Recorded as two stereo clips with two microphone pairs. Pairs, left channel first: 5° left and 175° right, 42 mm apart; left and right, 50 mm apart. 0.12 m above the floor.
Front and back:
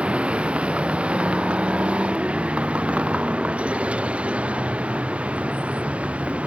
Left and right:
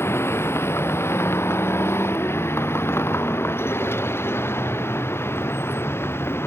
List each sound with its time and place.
0.0 s a vehicle: 125° left